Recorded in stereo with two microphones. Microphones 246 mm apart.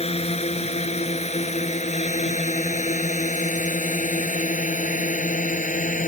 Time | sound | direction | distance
0.0 | a drone | 25° left (ahead or behind) | ?